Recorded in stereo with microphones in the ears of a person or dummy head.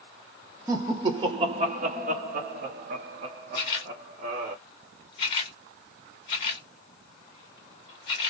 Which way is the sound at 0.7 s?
20° right (ahead or behind).